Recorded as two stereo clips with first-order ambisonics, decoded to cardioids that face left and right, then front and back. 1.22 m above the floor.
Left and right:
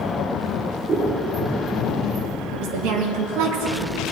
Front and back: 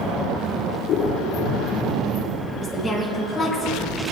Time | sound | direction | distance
0.9 | scissors | 30° right | 1.3 m
2.5 | a woman speaking | 90° right | 2 m